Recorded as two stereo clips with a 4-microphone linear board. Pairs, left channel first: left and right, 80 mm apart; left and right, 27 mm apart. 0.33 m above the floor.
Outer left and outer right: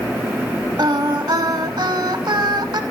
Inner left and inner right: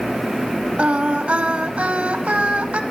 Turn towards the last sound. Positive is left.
turn(degrees=-60)  # may be behind; listen again after turning